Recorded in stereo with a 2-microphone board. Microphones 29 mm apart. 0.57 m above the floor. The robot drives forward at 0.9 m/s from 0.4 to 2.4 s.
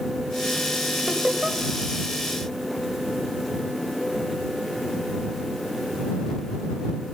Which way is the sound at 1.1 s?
45° right (ahead or behind).